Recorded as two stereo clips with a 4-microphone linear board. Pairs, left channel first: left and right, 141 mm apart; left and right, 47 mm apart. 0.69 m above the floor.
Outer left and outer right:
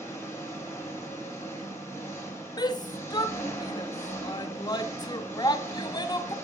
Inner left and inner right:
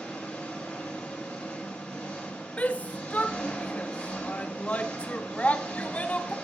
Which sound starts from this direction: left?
A shout, at 2.6 s.